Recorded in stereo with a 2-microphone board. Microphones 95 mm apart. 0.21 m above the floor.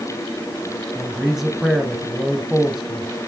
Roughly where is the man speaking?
Centre.